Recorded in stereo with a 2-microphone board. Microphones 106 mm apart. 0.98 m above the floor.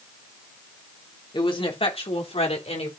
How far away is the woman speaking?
About 2.5 m.